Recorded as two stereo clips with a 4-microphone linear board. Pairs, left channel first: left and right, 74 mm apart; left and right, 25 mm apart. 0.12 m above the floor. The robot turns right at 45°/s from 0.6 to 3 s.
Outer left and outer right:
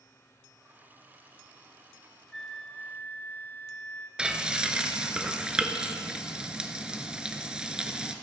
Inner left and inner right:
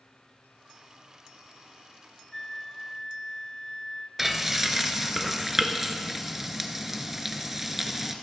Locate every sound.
2.3 s a flute: 10° left, 0.8 m; by 4.1 s 40° left, 0.8 m
4.2 s frying: 10° right (ahead or behind), 0.9 m